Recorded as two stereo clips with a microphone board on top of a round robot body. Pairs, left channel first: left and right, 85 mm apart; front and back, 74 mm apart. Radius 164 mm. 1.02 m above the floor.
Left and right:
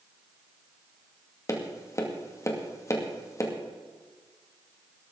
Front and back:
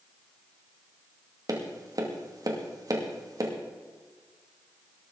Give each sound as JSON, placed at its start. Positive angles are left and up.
{"t": 1.5, "sound": "tapping", "azimuth_deg": 145, "distance_m": 2.5}